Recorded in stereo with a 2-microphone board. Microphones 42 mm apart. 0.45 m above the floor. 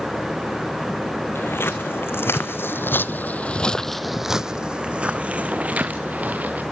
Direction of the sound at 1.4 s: 70° left (ahead or behind).